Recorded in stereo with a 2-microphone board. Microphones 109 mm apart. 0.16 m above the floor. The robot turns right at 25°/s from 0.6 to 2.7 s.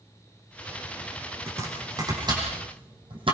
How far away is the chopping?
About 7.5 m.